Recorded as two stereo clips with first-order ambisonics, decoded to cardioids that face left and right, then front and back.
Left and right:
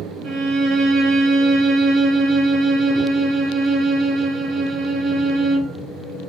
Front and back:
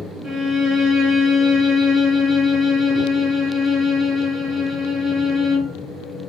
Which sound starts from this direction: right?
A violin, at 0.2 s.